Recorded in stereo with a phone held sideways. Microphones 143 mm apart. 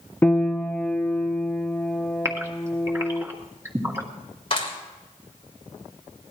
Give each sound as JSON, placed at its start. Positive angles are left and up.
{"t": 0.2, "sound": "a piano", "side_deg": 10, "distance_m": 0.8}
{"t": 2.2, "sound": "a gasp", "side_deg": -20, "distance_m": 2.0}
{"t": 4.5, "sound": "a clap", "side_deg": 40, "distance_m": 4.0}